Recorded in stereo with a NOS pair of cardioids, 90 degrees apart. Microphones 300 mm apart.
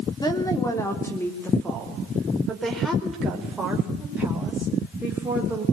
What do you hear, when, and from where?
0.2 s a woman speaking: 15° left, 3 m; by 5.6 s 5° right, 6 m